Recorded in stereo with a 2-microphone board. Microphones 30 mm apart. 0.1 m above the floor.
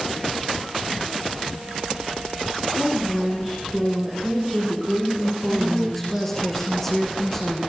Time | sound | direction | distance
2.7 | a woman speaking | 15° left (ahead or behind) | 7 m
5.5 | a woman speaking | 10° left (ahead or behind) | 5.5 m